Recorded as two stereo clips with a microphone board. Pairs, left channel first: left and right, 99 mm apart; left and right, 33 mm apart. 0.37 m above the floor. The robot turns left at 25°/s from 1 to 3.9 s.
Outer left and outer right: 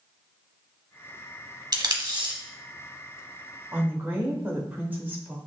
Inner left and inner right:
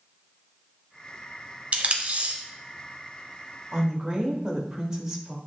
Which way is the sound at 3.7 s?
15° right (ahead or behind).